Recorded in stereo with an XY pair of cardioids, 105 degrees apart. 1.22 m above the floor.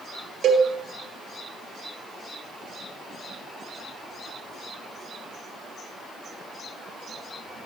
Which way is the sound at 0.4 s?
65° right.